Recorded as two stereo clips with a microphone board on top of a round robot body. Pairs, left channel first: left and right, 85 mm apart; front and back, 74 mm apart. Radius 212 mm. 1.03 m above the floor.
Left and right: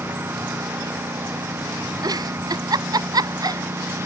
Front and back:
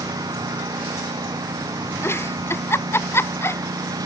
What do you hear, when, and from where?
0.0 s a lawn mower: 155° right; by 4.1 s 150° right
2.0 s a giggle: 55° right